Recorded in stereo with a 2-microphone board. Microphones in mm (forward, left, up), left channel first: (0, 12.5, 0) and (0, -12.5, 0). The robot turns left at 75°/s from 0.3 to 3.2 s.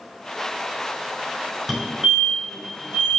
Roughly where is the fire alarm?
Centre.